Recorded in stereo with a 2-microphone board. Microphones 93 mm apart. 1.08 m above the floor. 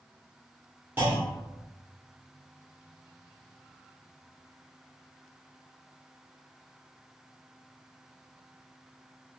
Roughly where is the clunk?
Right.